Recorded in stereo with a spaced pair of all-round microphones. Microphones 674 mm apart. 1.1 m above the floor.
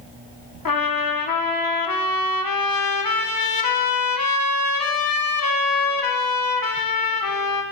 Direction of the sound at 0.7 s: 35° left (ahead or behind).